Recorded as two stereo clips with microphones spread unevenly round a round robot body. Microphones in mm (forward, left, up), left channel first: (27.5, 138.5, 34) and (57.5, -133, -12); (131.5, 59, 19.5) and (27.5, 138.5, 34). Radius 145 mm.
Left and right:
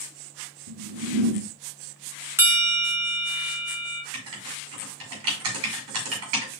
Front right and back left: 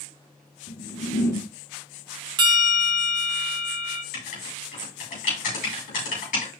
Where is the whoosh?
65° right, 1.9 m.